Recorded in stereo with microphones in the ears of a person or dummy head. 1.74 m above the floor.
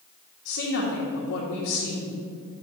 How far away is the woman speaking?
About 1.4 m.